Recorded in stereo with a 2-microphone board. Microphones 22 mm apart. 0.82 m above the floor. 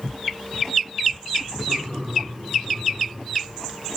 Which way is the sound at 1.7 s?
75° right (ahead or behind).